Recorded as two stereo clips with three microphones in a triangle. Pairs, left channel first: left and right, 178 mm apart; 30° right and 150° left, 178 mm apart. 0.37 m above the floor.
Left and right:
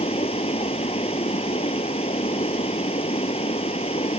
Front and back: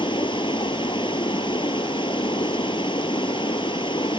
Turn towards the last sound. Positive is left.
turn(degrees=35)